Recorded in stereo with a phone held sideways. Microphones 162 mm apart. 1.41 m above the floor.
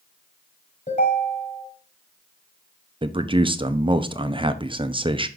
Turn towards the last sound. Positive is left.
turn(degrees=-30)  # may be behind; listen again after turning